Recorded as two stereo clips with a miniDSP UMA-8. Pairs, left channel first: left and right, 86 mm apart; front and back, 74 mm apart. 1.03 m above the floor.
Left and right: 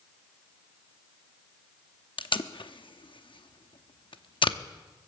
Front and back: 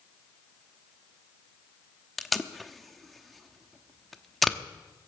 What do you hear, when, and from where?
2.2 s tape being pulled: 90° left, 0.8 m